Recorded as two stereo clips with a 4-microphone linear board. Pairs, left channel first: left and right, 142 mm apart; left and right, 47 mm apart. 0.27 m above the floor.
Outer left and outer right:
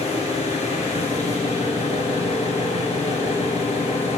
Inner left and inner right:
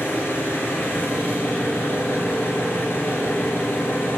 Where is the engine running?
55° left (ahead or behind), 3.5 m.